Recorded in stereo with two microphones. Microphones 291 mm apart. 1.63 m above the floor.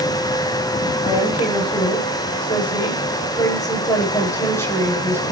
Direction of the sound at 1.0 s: 20° left (ahead or behind).